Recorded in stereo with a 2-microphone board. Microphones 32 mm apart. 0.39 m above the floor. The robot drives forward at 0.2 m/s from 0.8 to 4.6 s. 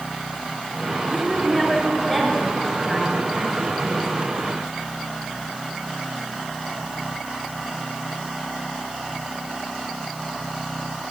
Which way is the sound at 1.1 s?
20° left (ahead or behind).